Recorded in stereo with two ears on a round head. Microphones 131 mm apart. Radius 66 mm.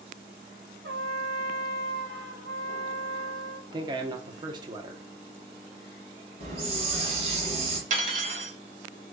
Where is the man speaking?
30° right (ahead or behind), 0.8 m.